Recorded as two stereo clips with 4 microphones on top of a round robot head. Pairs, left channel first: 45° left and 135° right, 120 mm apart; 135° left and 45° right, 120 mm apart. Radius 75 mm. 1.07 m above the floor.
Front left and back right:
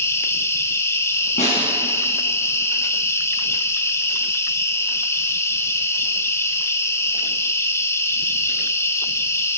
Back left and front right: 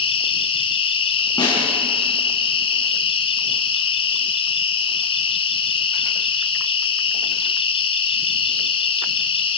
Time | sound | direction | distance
0.0 | an insect | 110° left | 1.4 m
1.4 | a snare drum | 80° left | 6.5 m